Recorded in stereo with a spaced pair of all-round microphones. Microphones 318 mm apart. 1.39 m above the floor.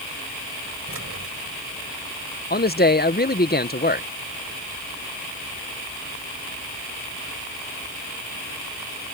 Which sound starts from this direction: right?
Keys jangling, at 0.9 s.